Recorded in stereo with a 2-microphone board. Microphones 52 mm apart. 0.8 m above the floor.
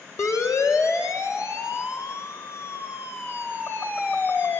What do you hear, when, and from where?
0.2 s a siren: 80° left, 3.5 m; by 4.6 s 45° left (ahead or behind), 4 m